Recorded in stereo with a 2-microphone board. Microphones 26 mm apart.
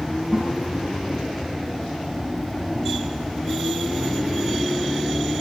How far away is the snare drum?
About 8.5 m.